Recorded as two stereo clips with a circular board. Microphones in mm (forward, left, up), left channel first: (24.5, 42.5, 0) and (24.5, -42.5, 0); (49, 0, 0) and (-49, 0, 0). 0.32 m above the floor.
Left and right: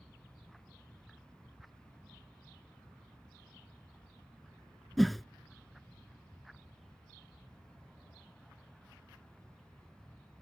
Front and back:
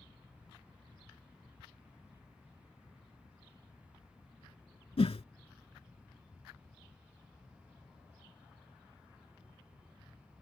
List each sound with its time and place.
5.0 s a whoosh: straight ahead